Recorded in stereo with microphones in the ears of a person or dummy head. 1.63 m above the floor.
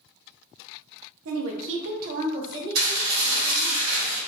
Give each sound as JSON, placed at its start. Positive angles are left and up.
{"t": 1.2, "sound": "a woman speaking", "side_deg": -85, "distance_m": 0.7}
{"t": 2.8, "sound": "dishes clattering", "side_deg": -40, "distance_m": 1.5}